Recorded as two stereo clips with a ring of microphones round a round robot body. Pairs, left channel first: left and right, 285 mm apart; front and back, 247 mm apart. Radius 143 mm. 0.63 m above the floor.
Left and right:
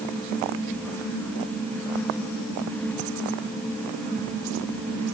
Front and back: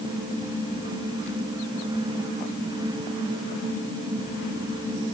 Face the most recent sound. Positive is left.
No sound to turn to.